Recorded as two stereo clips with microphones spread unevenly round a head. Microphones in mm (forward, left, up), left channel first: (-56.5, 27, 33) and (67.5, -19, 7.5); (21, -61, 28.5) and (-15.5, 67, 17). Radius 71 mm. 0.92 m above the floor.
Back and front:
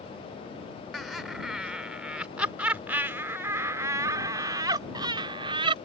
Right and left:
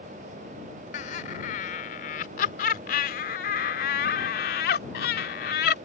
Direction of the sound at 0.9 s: 110° right.